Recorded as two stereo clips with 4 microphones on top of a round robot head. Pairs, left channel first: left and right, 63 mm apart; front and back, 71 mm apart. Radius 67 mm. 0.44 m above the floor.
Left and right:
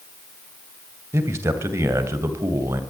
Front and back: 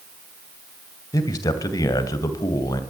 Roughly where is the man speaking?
Ahead right.